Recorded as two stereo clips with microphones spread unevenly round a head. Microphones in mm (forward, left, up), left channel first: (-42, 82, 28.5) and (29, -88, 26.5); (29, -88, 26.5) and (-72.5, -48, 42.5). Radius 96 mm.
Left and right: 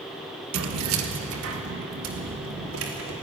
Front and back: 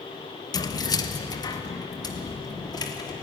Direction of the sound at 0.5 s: 75° right.